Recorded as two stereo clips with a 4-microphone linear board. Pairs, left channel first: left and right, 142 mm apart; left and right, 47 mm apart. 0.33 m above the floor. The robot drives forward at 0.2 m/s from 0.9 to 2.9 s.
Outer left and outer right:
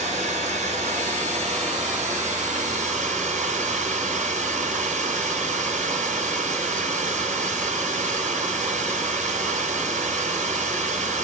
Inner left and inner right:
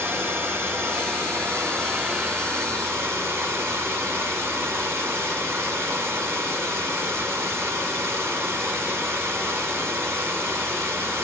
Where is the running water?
50° right (ahead or behind), 2.5 m; by 11.2 s 60° right (ahead or behind), 2 m.